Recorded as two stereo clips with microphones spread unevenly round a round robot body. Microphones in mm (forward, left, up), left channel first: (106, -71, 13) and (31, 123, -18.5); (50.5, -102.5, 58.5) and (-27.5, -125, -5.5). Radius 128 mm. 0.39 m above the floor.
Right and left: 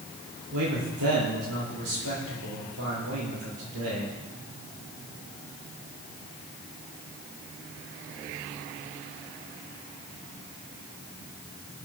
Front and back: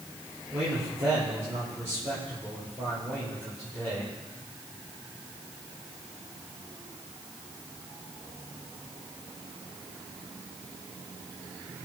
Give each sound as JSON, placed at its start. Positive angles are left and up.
{"t": 0.5, "sound": "a man speaking", "azimuth_deg": 135, "distance_m": 9.5}